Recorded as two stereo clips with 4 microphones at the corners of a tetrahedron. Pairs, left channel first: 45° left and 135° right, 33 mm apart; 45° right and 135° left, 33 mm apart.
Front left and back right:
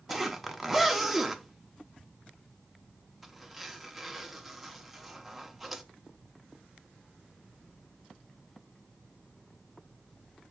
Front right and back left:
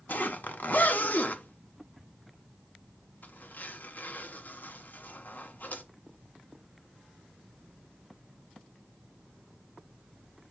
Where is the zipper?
50° right, 0.9 m.